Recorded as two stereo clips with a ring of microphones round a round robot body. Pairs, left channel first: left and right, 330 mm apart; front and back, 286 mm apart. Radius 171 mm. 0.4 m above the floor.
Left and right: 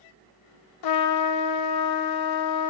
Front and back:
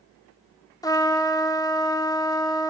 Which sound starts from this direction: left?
A trumpet, at 0.8 s.